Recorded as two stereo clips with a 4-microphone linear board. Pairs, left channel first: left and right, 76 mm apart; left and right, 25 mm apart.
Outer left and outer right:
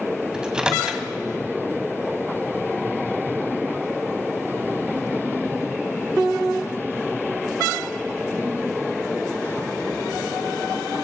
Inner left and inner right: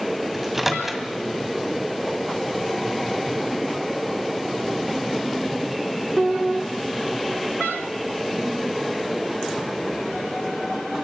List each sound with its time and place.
0.3 s a microwave: 10° right (ahead or behind), 2 m